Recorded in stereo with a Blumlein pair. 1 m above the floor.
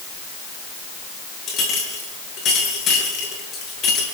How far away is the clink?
About 9 m.